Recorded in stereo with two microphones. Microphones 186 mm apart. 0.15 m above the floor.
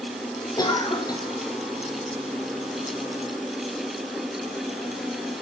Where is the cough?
20° left (ahead or behind), 5.5 m.